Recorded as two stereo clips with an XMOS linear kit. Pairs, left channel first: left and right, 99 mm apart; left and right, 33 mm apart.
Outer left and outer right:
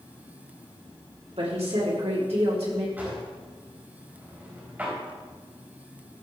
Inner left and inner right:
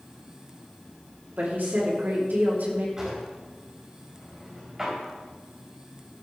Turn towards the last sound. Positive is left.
turn(degrees=-15)  # may be behind; listen again after turning